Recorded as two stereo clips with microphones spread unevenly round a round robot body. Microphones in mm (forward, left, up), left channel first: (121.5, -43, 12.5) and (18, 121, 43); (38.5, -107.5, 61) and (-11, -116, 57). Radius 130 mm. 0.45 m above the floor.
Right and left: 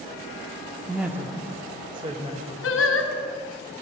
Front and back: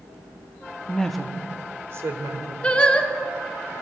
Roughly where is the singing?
Ahead right.